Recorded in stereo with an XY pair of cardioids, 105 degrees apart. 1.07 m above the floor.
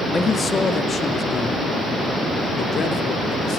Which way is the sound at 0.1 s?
25° left.